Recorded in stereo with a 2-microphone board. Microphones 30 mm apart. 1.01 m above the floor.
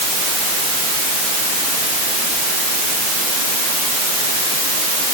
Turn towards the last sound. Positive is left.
No sound to turn to.